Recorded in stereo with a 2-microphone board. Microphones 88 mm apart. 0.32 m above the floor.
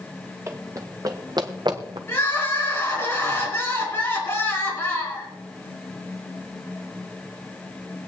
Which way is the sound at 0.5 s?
30° right (ahead or behind).